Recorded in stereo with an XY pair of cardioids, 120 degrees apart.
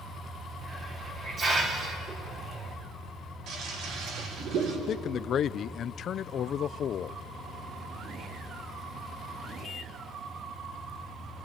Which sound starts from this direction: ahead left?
A man speaking, at 4.9 s.